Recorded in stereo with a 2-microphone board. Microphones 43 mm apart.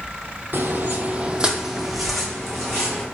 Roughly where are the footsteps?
Right.